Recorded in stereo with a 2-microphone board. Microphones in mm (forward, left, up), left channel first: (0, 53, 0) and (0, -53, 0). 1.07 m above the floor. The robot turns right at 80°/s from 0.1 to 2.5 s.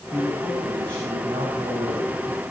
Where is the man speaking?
Straight behind, 7 m; by 2.4 s 5° left, 7 m.